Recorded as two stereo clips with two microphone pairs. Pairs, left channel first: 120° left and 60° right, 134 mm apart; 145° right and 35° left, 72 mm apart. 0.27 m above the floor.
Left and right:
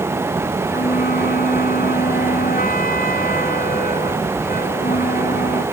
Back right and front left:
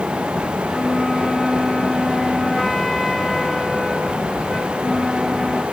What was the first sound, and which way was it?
A flute, 130° left.